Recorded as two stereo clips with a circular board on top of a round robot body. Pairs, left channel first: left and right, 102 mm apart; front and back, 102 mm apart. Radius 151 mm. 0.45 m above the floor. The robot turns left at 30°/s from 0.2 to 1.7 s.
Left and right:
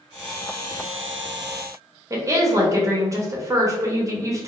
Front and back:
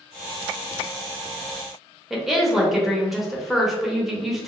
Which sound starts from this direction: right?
A woman speaking, at 2.1 s.